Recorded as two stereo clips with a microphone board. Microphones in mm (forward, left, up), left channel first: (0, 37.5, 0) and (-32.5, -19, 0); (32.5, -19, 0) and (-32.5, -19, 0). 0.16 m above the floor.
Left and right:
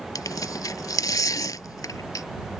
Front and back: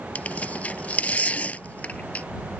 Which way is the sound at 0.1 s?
65° left.